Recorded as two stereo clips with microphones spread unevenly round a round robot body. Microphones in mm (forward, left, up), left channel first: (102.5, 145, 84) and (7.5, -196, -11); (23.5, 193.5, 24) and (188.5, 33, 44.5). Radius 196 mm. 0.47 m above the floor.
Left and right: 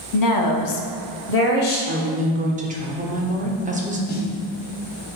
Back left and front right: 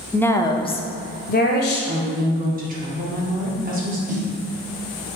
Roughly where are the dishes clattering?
No dishes clattering in this recording.